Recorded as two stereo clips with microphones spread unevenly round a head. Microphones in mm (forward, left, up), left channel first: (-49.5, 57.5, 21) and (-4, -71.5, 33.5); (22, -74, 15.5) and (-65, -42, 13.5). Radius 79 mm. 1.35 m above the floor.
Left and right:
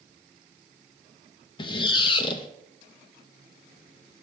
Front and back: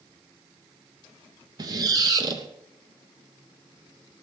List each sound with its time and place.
1.6 s a squeak: 150° left, 0.6 m